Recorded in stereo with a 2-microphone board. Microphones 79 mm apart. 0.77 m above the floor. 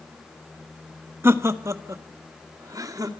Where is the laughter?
30° right (ahead or behind), 1.2 m; by 3.1 s 50° right (ahead or behind), 2.5 m.